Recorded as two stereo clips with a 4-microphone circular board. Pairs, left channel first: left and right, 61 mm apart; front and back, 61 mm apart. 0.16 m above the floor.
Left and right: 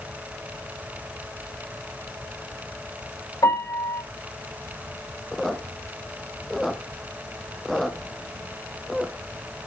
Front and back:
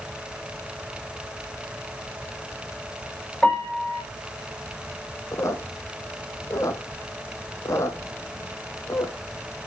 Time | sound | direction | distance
3.4 | a piano | 75° left | 4 m
5.3 | a squeak | straight ahead | 0.9 m